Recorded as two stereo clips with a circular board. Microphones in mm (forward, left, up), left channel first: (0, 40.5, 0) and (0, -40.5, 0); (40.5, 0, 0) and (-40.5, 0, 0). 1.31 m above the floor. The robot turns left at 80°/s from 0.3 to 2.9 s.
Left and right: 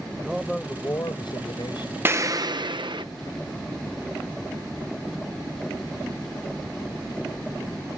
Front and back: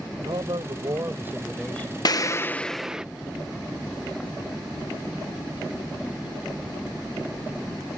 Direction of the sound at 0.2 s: 165° right.